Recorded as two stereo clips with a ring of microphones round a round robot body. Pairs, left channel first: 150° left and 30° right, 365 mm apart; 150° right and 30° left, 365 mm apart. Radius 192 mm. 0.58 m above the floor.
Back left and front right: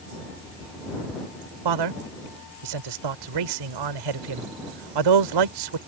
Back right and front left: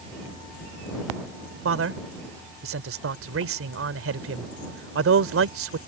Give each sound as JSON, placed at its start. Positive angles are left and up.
{"t": 1.6, "sound": "a man speaking", "azimuth_deg": -25}